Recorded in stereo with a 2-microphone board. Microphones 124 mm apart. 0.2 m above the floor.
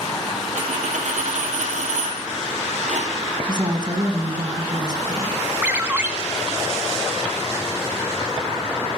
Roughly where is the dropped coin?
Right.